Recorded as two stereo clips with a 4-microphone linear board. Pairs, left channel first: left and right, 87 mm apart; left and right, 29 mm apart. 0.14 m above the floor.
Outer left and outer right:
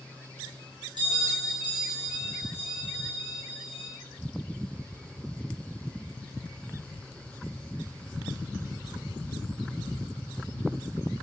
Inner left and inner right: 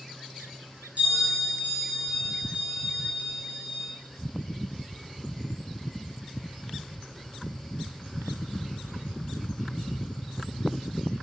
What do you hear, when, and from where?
1.0 s a bell: 60° right (ahead or behind), 2.0 m